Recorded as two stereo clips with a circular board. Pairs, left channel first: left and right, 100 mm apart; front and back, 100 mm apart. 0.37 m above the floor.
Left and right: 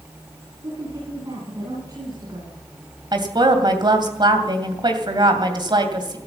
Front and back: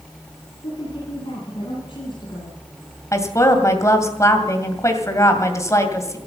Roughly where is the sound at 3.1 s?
Ahead right.